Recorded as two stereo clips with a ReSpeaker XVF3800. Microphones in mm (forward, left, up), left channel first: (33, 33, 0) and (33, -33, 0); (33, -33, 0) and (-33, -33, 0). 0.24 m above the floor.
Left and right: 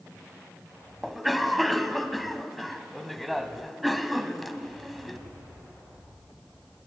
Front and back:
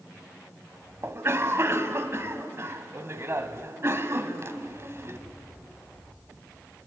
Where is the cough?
Straight behind, 1.4 m.